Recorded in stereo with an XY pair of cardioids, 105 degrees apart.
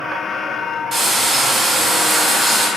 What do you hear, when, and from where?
0.9 s frying: 35° right, 1.5 m